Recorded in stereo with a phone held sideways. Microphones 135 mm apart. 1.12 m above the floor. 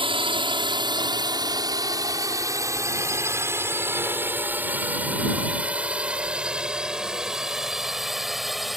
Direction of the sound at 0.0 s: 40° right (ahead or behind).